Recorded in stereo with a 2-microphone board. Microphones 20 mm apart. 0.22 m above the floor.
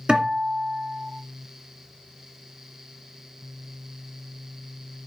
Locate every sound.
0.1 s a guitar: 50° right (ahead or behind), 1.8 m